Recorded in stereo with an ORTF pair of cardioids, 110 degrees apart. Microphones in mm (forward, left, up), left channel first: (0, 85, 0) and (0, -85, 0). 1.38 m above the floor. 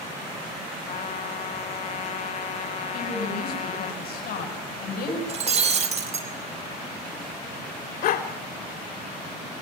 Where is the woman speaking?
60° left, 9.5 m.